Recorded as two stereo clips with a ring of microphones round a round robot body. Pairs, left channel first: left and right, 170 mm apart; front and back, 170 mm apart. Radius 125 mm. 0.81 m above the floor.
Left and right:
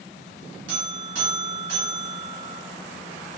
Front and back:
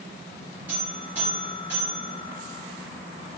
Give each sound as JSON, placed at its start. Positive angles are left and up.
{"t": 0.7, "sound": "a buzzer", "azimuth_deg": -95, "distance_m": 2.0}